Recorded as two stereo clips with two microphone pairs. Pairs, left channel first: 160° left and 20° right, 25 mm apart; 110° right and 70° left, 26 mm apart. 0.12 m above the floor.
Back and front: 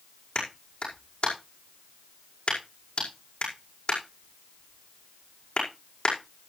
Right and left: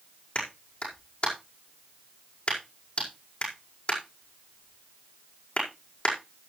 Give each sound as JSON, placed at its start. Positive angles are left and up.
{"t": 0.3, "sound": "a clap", "azimuth_deg": -155, "distance_m": 6.0}